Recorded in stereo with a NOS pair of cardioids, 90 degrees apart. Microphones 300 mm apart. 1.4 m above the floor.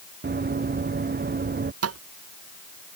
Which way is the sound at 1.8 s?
55° right.